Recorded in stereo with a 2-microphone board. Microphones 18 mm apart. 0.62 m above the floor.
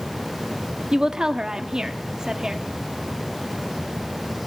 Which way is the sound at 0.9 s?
40° right (ahead or behind).